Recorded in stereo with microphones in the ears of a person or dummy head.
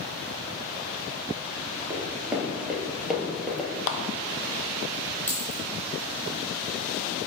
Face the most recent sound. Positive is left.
turn(degrees=5)  # may be behind; listen again after turning